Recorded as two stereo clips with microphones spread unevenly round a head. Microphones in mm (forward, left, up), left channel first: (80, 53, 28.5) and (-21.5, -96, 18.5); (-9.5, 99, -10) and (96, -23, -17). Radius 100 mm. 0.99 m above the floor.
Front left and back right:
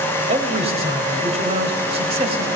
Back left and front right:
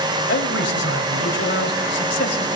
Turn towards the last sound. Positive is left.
turn(degrees=175)